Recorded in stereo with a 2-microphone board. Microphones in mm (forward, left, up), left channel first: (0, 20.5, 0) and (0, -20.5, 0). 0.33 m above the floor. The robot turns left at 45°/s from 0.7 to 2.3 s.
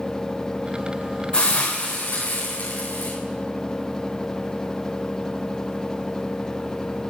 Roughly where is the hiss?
Behind left.